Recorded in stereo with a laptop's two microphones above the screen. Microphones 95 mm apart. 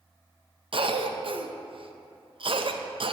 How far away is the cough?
About 0.5 m.